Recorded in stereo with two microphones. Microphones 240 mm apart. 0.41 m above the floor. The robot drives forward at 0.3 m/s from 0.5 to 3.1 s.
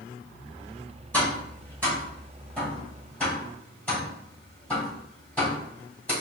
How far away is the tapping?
About 2.0 m.